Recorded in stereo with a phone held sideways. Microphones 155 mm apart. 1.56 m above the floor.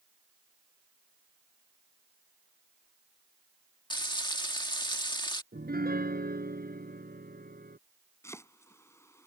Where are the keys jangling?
I don't hear keys jangling.